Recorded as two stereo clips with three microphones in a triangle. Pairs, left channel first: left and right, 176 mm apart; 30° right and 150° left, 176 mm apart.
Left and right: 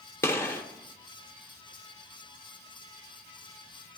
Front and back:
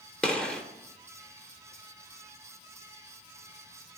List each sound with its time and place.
0.2 s a gunshot: 45° left, 0.7 m